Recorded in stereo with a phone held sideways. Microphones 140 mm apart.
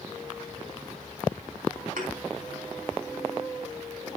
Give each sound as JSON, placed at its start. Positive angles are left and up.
{"t": 2.0, "sound": "a thud", "side_deg": -85, "distance_m": 4.0}